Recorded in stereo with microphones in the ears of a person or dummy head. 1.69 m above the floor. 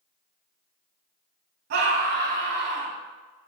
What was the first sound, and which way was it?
A scream, 60° right (ahead or behind).